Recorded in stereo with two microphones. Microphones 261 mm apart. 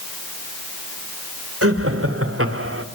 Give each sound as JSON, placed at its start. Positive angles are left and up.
{"t": 1.6, "sound": "laughter", "side_deg": -60, "distance_m": 3.0}